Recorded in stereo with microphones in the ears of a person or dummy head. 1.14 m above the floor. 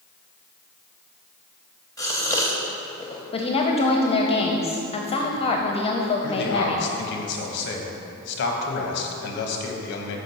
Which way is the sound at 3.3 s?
30° left (ahead or behind).